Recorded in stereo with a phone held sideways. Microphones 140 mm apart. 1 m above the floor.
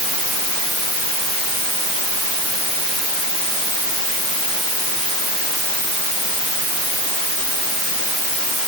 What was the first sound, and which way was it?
Only background noise.